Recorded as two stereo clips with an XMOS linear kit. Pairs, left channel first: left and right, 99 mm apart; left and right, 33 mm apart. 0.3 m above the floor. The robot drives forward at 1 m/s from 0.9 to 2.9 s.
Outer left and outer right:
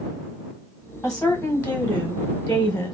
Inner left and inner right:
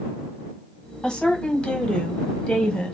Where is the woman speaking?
10° left (ahead or behind), 1.4 m; by 2.9 s 15° left (ahead or behind), 1.2 m.